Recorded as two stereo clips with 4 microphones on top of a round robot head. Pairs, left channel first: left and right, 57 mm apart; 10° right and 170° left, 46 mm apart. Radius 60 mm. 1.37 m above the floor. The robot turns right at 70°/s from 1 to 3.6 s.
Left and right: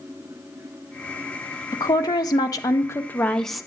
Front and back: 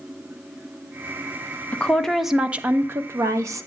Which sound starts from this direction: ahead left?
A woman speaking, at 1.7 s.